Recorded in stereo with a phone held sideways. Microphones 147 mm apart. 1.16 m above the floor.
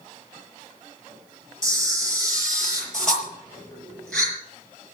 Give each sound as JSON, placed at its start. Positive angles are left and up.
{"t": 1.6, "sound": "a camera shutter", "side_deg": 5, "distance_m": 6.0}